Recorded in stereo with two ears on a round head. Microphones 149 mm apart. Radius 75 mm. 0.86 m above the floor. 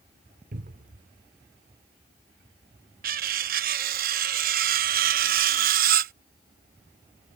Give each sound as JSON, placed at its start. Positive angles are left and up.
{"t": 0.5, "sound": "a cupboard door", "side_deg": -55}
{"t": 3.0, "sound": "cutlery clinking", "side_deg": -55}